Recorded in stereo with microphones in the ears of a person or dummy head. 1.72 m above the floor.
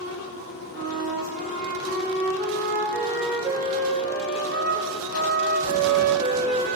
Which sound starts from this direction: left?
A flute, at 0.7 s.